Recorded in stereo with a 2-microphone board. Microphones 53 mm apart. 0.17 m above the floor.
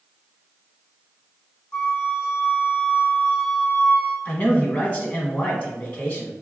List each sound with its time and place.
1.7 s a flute: 20° left (ahead or behind), 1.2 m
4.2 s a man speaking: 30° left (ahead or behind), 1.1 m